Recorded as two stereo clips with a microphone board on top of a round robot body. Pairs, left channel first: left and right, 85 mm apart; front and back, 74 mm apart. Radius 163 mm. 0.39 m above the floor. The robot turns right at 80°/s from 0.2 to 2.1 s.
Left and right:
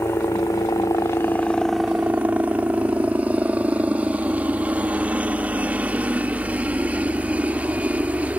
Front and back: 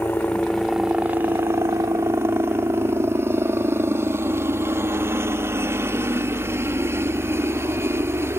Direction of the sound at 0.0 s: 55° left.